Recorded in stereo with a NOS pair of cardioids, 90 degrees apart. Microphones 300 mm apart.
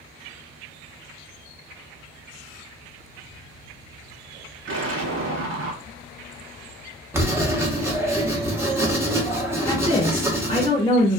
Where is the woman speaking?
20° left, 1.1 m.